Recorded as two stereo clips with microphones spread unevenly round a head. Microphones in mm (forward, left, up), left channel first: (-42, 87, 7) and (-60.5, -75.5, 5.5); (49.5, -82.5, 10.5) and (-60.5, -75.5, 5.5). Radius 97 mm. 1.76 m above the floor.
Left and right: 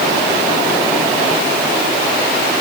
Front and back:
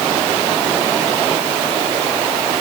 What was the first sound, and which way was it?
Only background noise.